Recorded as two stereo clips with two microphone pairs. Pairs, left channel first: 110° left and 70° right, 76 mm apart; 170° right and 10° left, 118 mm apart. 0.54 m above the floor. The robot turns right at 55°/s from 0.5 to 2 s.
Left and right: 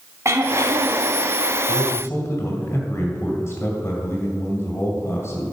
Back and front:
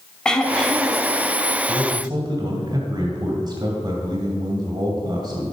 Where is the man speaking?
45° left, 2 m; by 5.5 s 60° left, 2 m.